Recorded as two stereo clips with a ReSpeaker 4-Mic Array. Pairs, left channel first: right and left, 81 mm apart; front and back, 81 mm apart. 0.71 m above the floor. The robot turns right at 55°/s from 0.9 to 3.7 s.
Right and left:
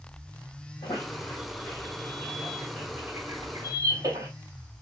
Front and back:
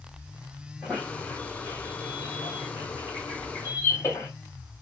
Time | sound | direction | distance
0.8 | a squeak | 95° right | 3.5 m